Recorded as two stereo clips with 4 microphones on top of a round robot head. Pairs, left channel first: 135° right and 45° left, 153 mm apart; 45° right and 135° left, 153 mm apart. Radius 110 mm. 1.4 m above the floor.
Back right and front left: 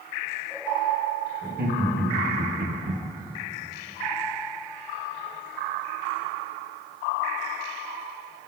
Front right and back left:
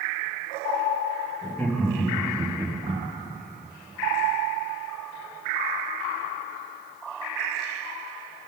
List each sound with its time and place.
1.4 s laughter: 35° left, 3 m; by 3.0 s 90° left, 1.1 m